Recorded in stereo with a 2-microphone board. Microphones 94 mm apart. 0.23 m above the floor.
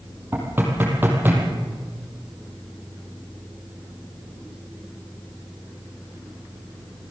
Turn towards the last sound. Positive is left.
turn(degrees=-20)  # may be behind; listen again after turning